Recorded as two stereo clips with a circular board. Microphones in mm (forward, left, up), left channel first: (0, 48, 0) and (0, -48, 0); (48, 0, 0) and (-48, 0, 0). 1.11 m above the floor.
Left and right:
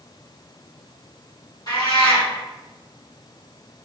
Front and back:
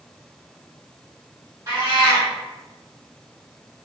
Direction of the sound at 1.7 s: 130° left.